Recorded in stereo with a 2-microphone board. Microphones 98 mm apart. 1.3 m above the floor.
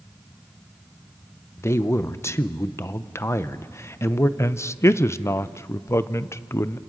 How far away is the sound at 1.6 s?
About 0.7 m.